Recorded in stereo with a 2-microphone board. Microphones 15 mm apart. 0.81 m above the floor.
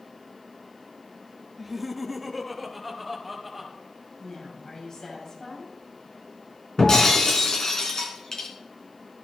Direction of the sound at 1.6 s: 10° right (ahead or behind).